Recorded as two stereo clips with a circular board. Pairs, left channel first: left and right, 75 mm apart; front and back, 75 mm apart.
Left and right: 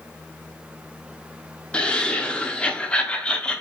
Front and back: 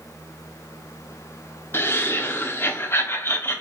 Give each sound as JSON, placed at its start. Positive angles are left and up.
{"t": 1.7, "sound": "laughter", "azimuth_deg": 25, "distance_m": 0.7}